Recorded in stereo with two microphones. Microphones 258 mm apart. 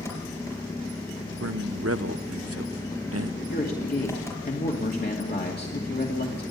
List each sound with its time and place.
0.0 s an engine running: 10° left (ahead or behind), 5 m
1.4 s a man speaking: 65° right (ahead or behind), 0.7 m
3.5 s a man speaking: 40° left (ahead or behind), 2.5 m